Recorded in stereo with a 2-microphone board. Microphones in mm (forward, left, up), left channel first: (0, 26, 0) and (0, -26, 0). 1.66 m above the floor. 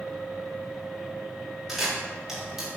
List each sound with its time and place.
1.7 s a camera shutter: 5° right (ahead or behind), 4 m